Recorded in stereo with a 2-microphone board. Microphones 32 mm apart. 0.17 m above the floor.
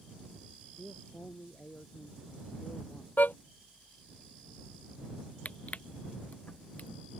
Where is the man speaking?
75° left (ahead or behind).